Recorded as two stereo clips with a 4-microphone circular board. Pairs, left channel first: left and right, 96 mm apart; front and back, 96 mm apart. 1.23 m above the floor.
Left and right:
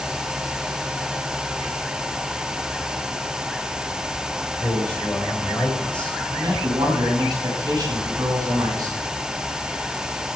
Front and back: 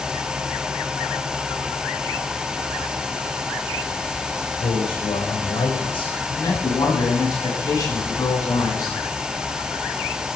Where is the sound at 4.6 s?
15° left, 7 m.